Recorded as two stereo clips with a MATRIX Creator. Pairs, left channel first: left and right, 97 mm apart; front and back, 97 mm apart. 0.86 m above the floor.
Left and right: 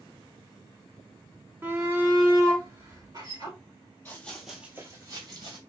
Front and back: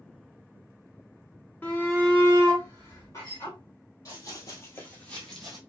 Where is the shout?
50° right, 1.0 m.